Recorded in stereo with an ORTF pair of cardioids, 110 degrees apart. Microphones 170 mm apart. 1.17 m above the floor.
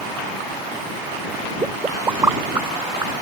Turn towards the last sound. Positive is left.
turn(degrees=-15)